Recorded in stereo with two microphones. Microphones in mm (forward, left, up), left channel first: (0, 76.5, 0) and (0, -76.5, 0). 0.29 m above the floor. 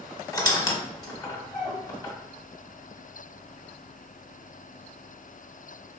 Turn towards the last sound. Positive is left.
turn(degrees=25)  # may be behind; listen again after turning